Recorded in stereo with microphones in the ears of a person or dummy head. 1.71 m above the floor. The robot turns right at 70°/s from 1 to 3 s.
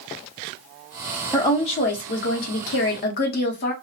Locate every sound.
1.3 s a woman speaking: 10° left, 0.8 m; by 3.7 s 125° left, 0.8 m